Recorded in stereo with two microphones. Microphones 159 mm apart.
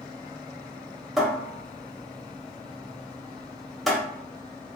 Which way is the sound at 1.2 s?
Centre (ahead or behind).